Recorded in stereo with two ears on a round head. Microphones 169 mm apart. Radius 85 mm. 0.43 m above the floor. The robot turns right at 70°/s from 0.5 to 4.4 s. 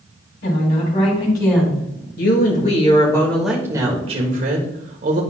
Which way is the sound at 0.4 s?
115° left.